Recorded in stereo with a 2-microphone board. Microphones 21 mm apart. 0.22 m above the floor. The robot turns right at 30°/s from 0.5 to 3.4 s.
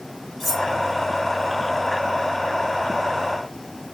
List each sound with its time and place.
0.4 s cutlery clinking: 5° left (ahead or behind), 2.5 m; by 0.7 s centre (ahead or behind), 2.5 m